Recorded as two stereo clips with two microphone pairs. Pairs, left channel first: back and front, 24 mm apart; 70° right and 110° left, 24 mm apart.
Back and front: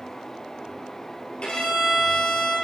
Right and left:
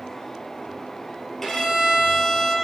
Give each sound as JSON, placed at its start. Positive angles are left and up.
{"t": 1.4, "sound": "a violin", "azimuth_deg": -145, "distance_m": 1.8}